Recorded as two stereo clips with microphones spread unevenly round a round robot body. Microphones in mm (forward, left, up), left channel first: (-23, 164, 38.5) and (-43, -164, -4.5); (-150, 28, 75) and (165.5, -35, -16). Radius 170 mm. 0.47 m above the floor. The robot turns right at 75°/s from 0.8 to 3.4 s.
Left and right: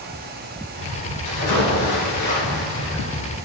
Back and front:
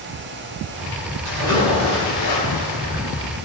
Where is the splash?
40° left, 3 m; by 3.0 s 175° left, 3 m.